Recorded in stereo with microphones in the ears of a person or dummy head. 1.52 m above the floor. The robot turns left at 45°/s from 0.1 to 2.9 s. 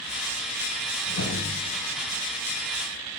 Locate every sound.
1.0 s a whoosh: 80° left, 6.5 m; by 2.2 s 40° left (ahead or behind), 6.5 m